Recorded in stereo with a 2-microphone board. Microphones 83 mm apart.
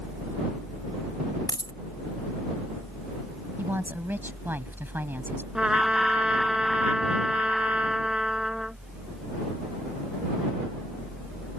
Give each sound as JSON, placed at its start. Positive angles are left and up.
{"t": 1.5, "sound": "a dropped coin", "side_deg": 55}
{"t": 3.6, "sound": "a woman speaking", "side_deg": -25}
{"t": 5.5, "sound": "a trumpet", "side_deg": -10}